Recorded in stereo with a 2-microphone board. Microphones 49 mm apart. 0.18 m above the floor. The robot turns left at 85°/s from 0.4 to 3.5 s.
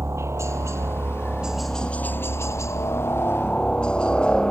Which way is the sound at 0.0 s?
75° right.